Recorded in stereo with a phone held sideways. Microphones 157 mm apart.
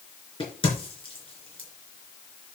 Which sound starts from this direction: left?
A crack, at 0.4 s.